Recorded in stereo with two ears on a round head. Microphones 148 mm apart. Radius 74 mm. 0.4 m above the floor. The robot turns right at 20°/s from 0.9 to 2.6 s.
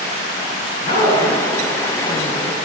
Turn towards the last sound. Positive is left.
turn(degrees=70)